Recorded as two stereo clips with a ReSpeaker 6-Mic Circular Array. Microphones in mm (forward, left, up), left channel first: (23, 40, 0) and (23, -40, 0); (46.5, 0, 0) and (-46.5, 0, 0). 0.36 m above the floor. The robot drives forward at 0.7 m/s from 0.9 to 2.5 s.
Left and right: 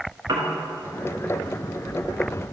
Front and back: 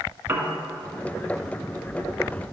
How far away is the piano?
About 1.5 m.